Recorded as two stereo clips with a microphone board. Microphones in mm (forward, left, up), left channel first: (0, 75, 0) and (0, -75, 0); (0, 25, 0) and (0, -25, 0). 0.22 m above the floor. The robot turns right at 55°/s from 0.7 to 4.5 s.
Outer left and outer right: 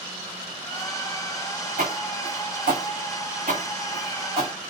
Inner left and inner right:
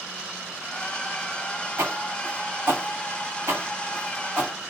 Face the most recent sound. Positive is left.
turn(degrees=-30)  # may be behind; listen again after turning